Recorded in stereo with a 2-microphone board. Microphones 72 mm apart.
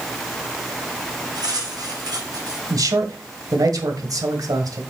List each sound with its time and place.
1.4 s cutlery clinking: 65° right (ahead or behind), 4.5 m
2.7 s a man speaking: 60° right (ahead or behind), 1.7 m